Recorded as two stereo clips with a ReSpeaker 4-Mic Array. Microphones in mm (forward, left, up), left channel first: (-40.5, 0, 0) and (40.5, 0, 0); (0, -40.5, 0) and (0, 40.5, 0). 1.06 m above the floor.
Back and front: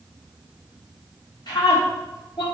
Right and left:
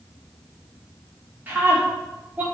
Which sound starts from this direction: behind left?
A scream, at 1.5 s.